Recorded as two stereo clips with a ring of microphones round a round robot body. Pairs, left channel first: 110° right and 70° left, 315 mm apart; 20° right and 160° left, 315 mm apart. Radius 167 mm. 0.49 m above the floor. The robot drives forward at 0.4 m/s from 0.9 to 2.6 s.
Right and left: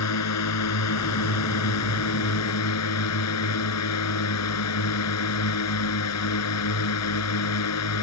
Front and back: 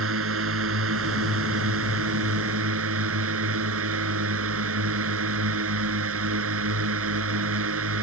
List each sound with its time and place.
0.0 s a drone: 150° right; by 8.0 s 155° right